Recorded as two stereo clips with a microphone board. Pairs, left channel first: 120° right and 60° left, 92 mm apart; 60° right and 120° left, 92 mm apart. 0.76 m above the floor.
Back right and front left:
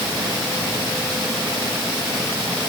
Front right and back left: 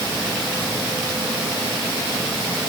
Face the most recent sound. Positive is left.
No sound to turn to.